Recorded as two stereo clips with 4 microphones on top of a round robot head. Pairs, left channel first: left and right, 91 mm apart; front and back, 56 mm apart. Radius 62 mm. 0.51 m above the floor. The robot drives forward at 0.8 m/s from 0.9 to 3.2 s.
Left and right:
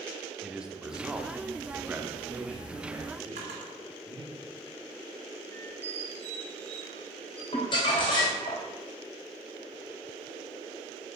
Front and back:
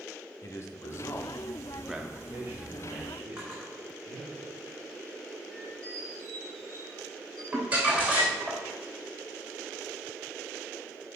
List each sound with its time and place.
0.4 s a man speaking: 10° right, 1.0 m; by 4.4 s 170° right, 1.3 m
3.4 s a drawer: 100° right, 1.8 m
5.5 s a squeak: 65° right, 1.8 m
7.5 s crumpling: 120° left, 2.5 m